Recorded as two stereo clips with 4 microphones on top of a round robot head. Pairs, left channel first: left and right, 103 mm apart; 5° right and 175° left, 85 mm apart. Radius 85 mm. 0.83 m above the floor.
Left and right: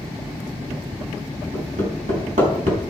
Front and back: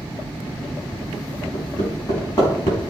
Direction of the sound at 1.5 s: 65° right.